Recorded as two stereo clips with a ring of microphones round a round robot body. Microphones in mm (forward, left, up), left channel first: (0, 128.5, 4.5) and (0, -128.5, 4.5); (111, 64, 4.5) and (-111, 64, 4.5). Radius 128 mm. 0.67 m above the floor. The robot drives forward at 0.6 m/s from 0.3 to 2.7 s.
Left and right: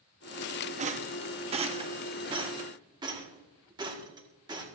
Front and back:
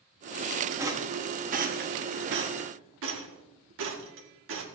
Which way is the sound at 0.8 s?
115° right.